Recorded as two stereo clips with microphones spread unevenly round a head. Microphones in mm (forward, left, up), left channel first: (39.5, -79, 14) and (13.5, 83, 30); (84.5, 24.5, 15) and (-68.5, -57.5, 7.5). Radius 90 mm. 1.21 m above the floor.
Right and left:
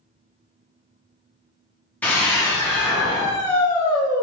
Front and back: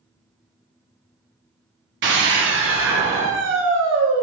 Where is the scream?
160° right, 0.8 m.